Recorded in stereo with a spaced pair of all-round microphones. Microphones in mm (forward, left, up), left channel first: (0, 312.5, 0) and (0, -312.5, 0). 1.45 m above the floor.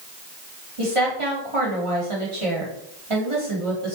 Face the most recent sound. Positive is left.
turn(degrees=-50)  # may be behind; listen again after turning